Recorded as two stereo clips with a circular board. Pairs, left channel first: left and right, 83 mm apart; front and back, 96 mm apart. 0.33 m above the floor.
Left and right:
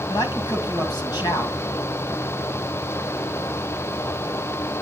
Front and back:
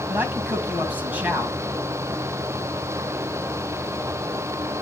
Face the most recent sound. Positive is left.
turn(degrees=110)